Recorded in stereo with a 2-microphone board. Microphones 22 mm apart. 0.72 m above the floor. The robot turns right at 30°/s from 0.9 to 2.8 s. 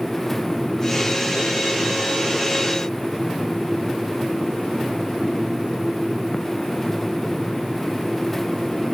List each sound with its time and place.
Only background noise.